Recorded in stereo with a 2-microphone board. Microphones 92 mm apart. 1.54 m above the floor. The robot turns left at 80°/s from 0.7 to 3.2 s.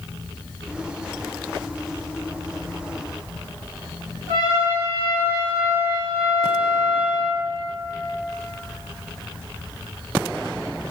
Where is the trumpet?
70° right (ahead or behind), 1.3 m.